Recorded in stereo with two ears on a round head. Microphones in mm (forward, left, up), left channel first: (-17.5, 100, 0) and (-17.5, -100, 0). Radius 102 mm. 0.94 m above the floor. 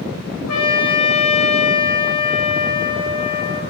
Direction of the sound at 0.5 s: 85° left.